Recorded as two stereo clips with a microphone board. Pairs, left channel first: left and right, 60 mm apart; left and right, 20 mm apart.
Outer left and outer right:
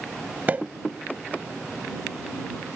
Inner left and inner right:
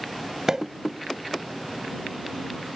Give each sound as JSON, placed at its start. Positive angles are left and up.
{"t": 0.5, "sound": "a pop", "side_deg": -25}